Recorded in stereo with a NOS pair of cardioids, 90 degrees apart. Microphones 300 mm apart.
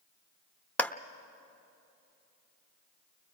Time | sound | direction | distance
0.8 | a clap | 5° left | 0.7 m